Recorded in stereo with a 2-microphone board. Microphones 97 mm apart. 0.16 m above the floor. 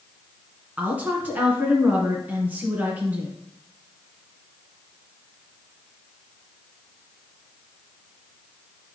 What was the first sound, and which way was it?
A woman speaking, 15° right (ahead or behind).